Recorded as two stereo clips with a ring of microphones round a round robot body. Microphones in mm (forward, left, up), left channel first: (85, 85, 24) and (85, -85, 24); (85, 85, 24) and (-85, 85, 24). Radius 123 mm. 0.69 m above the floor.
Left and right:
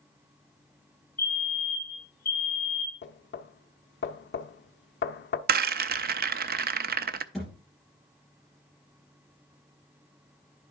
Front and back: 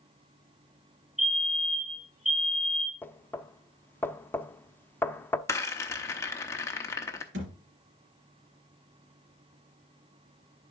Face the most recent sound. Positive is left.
turn(degrees=180)